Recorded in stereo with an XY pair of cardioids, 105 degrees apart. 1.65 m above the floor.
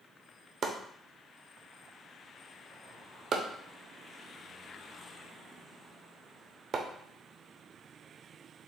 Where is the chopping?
50° right, 0.7 m.